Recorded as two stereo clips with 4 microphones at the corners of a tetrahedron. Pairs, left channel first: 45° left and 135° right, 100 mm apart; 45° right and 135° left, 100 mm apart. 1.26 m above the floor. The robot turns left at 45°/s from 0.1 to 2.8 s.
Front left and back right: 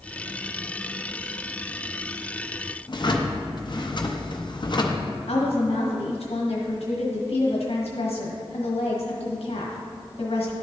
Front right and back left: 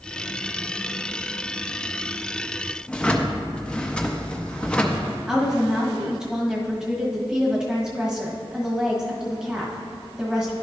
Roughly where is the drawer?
Ahead left.